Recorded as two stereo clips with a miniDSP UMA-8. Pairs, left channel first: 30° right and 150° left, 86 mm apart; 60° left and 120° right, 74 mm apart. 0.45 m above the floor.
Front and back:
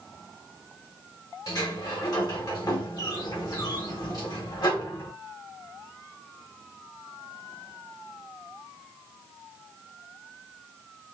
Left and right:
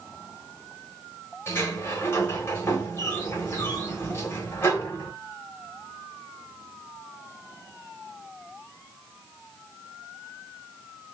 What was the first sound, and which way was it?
A sliding door, 10° left.